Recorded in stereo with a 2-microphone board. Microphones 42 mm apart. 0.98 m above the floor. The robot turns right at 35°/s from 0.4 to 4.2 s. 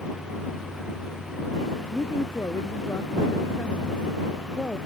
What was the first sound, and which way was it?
A woman speaking, 80° left.